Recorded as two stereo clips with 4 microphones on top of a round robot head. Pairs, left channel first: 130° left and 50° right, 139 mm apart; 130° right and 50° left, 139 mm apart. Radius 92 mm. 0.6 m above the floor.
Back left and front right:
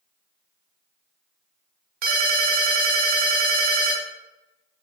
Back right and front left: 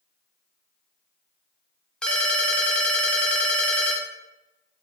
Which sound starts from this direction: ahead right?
A ringtone, at 2.0 s.